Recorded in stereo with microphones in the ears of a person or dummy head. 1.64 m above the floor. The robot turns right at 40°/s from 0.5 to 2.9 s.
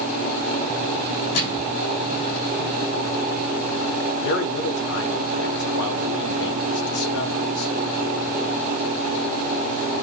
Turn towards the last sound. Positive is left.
turn(degrees=70)  # may be behind; listen again after turning